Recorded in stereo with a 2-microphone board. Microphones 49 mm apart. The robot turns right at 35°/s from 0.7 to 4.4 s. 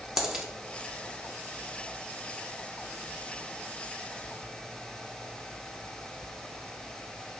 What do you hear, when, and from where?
0.2 s a dropped coin: 10° right (ahead or behind), 0.7 m